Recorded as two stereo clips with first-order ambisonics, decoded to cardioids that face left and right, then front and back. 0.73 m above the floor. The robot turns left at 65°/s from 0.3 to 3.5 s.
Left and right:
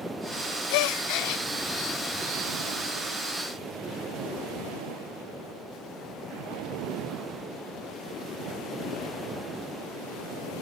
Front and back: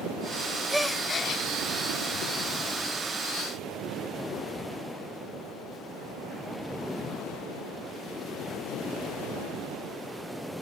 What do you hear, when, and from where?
0.7 s a gasp: 95° left, 0.7 m; by 1.4 s 45° left, 0.7 m